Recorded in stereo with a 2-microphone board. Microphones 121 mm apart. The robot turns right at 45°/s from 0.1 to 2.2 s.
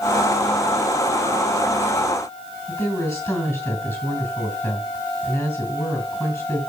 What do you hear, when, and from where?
2.7 s a woman speaking: 20° left (ahead or behind), 4.5 m